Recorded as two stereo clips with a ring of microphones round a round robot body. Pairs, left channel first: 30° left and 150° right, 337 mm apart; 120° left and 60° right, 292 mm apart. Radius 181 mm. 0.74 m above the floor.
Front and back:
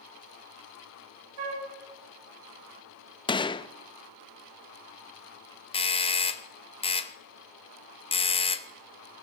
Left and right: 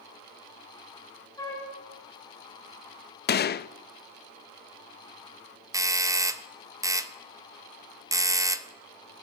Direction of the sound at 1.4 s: 160° right.